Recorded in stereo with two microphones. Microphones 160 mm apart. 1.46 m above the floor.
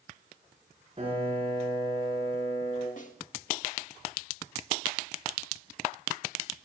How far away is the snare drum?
About 1.5 m.